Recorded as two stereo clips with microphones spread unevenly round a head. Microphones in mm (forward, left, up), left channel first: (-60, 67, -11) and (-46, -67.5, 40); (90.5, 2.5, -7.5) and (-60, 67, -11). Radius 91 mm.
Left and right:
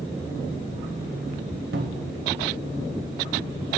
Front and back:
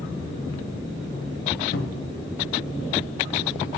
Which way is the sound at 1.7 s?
60° right.